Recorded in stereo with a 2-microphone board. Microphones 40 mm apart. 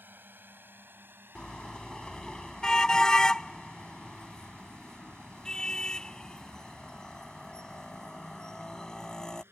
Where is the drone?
60° right (ahead or behind); by 9.5 s 80° right.